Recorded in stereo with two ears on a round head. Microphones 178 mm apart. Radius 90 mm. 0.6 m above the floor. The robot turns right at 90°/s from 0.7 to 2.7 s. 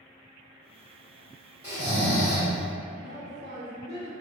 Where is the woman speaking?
55° right (ahead or behind), 1.6 m.